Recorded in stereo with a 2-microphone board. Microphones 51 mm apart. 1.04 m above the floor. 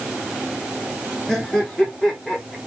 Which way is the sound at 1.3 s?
10° left (ahead or behind).